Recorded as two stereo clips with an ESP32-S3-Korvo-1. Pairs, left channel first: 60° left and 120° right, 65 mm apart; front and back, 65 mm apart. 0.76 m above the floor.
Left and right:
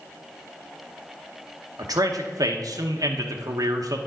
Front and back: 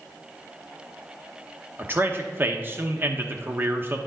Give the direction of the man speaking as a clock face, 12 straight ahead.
4 o'clock.